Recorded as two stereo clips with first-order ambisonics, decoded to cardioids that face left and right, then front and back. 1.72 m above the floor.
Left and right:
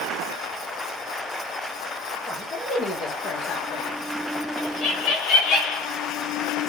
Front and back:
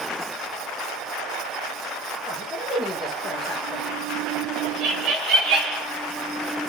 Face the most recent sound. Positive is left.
turn(degrees=135)